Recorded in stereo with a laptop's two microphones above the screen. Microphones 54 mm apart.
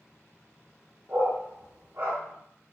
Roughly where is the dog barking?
Right.